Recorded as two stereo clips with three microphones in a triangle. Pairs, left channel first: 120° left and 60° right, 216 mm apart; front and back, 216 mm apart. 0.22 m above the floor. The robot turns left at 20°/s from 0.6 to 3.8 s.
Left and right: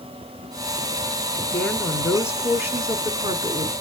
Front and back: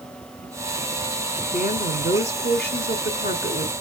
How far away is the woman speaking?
About 1.7 m.